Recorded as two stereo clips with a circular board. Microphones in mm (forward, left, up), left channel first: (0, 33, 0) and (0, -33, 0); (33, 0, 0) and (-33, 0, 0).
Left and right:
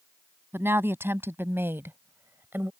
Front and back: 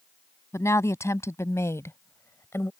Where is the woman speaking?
40° right.